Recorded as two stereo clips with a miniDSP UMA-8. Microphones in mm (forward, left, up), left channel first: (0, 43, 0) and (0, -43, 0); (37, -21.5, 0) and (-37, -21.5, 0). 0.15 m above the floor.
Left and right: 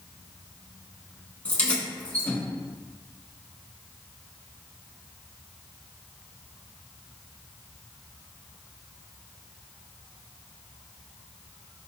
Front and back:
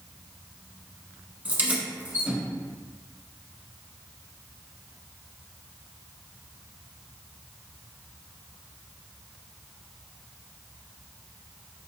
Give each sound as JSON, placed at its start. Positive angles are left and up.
{"t": 1.4, "sound": "keys jangling", "azimuth_deg": 145, "distance_m": 0.9}